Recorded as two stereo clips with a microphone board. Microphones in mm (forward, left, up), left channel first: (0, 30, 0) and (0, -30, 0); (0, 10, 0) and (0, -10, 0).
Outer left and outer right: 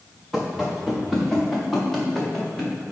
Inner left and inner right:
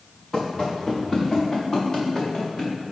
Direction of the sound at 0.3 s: Centre (ahead or behind).